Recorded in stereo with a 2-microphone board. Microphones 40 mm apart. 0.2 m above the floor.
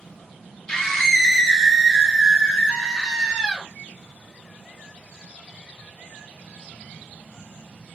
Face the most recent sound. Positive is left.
turn(degrees=-15)  # may be behind; listen again after turning